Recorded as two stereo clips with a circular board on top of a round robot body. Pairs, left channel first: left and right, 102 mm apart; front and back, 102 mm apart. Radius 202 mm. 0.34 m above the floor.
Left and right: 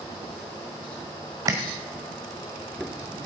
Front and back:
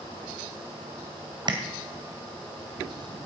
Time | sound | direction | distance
1.5 | tapping | 145° right | 1.9 m